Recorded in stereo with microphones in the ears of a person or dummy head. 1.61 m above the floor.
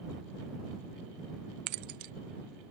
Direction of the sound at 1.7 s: 35° right (ahead or behind).